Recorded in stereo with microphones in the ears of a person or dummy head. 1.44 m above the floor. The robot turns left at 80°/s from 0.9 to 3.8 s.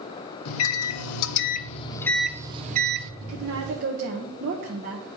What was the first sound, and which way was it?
A microwave, 105° left.